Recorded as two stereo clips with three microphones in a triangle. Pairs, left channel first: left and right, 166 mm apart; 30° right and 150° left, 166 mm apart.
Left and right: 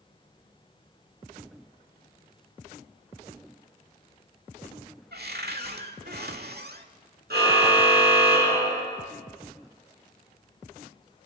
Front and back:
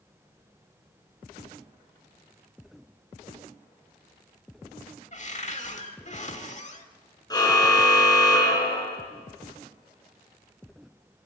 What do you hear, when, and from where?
5.1 s a cupboard door: 75° right, 1.5 m
7.3 s a car horn: 95° right, 5.5 m